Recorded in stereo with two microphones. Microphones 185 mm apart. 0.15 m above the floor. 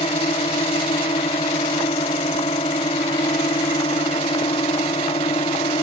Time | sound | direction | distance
0.0 | a drone | 35° left (ahead or behind) | ?